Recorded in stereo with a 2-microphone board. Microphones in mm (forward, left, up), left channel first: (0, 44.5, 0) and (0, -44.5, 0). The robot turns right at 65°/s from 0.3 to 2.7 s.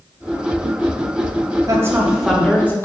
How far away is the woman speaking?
About 1.0 m.